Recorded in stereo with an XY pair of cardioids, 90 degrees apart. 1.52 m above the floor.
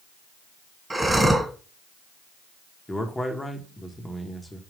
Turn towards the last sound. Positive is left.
turn(degrees=15)